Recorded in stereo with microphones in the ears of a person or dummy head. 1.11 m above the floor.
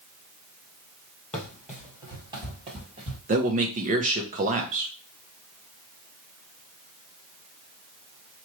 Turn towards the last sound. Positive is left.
turn(degrees=-35)  # may be behind; listen again after turning